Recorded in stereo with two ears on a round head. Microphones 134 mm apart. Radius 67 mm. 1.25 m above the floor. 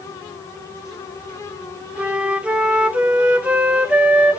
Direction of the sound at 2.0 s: 10° right (ahead or behind).